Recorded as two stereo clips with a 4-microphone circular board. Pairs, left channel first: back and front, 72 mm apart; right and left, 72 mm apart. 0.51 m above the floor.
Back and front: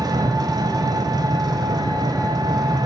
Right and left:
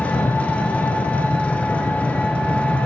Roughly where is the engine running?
Ahead.